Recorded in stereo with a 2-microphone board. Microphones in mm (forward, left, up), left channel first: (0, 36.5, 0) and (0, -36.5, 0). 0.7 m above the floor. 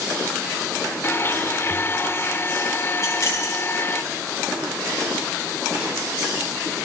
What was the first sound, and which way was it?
A blender, 30° left (ahead or behind).